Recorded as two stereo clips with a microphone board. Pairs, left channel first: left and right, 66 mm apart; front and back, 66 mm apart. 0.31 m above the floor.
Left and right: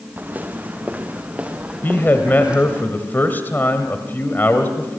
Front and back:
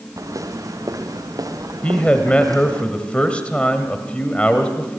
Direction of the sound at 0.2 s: 155° right.